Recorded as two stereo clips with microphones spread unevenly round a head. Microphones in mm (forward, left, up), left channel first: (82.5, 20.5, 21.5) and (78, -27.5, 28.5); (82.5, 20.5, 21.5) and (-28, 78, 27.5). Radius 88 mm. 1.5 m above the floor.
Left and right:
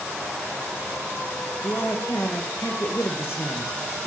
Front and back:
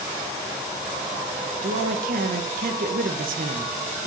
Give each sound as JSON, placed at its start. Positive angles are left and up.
{"t": 1.6, "sound": "a man speaking", "azimuth_deg": 150, "distance_m": 1.5}